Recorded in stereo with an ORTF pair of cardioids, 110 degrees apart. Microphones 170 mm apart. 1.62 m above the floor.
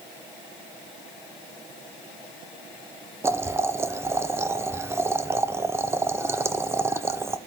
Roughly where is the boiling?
Ahead.